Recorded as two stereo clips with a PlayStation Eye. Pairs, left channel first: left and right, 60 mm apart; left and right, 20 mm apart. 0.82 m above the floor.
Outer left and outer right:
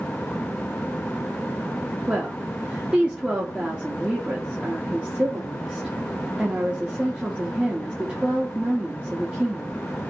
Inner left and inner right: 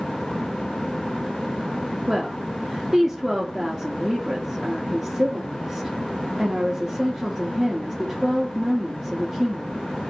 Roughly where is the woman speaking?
Centre.